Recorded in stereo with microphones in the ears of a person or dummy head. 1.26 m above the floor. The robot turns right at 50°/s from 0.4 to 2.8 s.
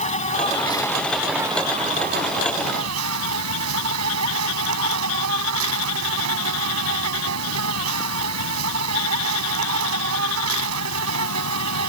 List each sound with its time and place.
0.0 s an insect: 150° left; by 11.9 s 90° right